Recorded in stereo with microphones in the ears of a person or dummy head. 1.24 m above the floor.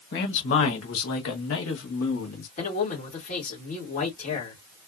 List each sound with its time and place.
0.1 s a man speaking: 70° left (ahead or behind), 1.8 m; by 2.5 s 60° left (ahead or behind), 2.5 m
2.6 s a man speaking: 40° left (ahead or behind), 2.5 m